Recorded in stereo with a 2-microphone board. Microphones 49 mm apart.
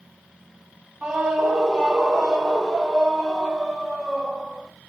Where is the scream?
15° right (ahead or behind), 2.0 m; by 4.7 s 5° left (ahead or behind), 4.5 m.